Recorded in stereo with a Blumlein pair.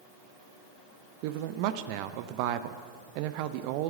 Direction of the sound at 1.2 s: 45° right.